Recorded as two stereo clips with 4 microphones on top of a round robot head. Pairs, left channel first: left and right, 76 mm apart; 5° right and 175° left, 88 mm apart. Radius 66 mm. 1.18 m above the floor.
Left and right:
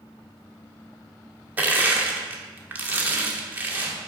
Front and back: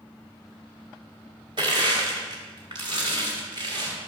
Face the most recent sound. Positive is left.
turn(degrees=-145)